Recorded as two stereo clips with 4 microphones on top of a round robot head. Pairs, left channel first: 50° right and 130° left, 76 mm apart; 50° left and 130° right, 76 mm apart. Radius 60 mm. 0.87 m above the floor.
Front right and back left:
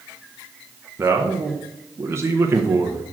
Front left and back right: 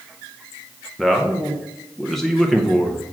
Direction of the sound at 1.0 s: 135° left.